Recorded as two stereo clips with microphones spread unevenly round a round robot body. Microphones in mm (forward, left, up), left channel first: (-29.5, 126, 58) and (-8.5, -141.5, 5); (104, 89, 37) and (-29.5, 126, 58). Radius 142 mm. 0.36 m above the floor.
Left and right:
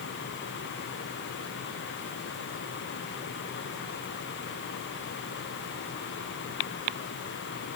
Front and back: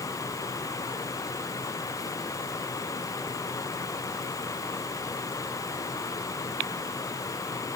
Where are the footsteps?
No footsteps in this recording.